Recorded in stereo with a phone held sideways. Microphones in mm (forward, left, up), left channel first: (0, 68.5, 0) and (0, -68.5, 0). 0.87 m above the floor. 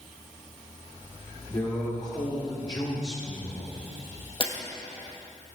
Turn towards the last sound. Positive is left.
turn(degrees=40)  # may be behind; listen again after turning